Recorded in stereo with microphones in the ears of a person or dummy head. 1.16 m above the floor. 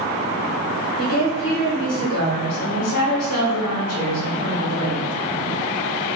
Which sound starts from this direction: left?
A woman speaking, at 1.0 s.